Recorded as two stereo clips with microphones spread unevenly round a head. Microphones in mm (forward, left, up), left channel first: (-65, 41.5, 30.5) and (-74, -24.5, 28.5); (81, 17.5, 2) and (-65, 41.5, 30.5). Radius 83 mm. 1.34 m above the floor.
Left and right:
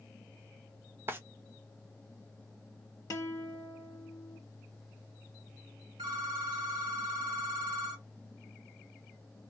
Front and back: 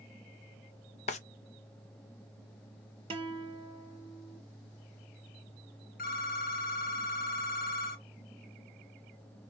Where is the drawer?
45° right, 0.5 m.